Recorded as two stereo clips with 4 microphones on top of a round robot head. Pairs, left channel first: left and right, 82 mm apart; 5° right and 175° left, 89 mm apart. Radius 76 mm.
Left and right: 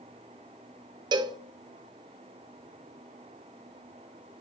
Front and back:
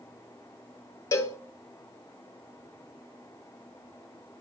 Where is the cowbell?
60° right, 0.7 m.